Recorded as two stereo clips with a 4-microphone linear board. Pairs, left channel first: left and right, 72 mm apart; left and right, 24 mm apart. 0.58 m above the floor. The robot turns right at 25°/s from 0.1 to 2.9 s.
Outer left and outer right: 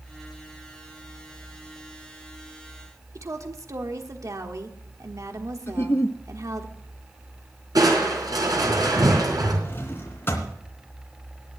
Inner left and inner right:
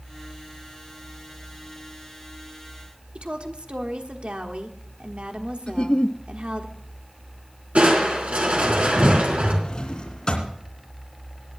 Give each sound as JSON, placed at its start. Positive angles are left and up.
{"t": 3.1, "sound": "a woman speaking", "side_deg": -50, "distance_m": 1.2}
{"t": 5.7, "sound": "a giggle", "side_deg": 45, "distance_m": 0.5}
{"t": 7.8, "sound": "crushing", "side_deg": -65, "distance_m": 4.0}
{"t": 9.6, "sound": "a drawer", "side_deg": 35, "distance_m": 3.0}